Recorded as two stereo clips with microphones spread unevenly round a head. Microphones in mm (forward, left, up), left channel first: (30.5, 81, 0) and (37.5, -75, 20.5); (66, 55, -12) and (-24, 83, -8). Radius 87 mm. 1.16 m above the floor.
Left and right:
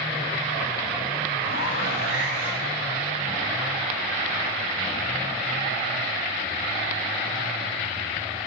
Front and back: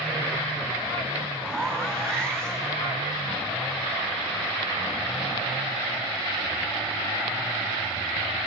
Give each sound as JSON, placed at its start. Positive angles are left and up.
{"t": 1.4, "sound": "a zipper", "azimuth_deg": 65, "distance_m": 4.0}